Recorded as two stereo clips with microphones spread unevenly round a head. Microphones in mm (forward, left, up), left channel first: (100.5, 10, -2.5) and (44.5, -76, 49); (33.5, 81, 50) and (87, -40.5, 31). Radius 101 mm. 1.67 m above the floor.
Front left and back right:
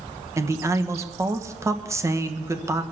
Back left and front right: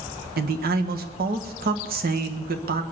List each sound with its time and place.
0.4 s a man speaking: 70° right, 1.5 m